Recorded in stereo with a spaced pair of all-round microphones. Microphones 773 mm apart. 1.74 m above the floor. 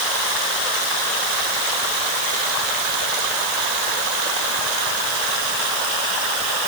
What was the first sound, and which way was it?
Only background noise.